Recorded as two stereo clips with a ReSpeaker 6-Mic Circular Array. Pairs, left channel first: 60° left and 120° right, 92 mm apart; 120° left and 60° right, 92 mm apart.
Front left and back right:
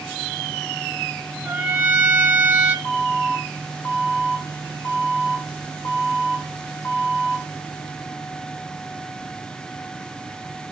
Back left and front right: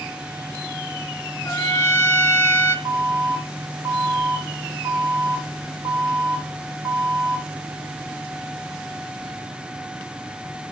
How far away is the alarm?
About 4.5 m.